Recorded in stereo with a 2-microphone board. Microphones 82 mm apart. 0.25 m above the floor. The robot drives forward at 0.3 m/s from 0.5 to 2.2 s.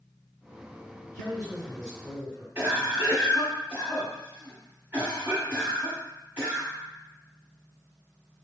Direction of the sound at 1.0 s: 15° left (ahead or behind).